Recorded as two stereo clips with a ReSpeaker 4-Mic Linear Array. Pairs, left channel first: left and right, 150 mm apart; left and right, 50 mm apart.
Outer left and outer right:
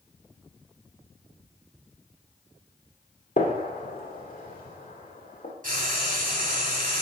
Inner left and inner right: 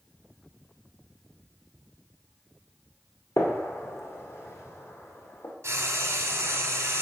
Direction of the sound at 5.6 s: 65° right (ahead or behind).